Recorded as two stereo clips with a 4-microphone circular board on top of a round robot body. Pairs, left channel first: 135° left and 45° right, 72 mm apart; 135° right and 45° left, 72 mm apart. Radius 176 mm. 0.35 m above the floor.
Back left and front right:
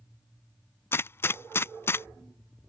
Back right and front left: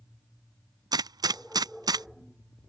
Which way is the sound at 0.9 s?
75° left.